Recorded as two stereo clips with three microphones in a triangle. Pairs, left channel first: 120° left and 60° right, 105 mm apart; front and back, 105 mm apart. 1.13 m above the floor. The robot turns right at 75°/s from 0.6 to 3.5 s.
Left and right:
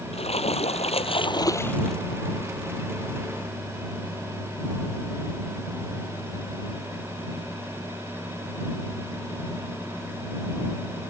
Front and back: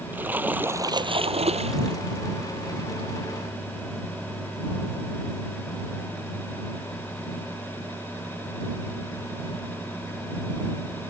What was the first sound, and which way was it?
A splash, 110° left.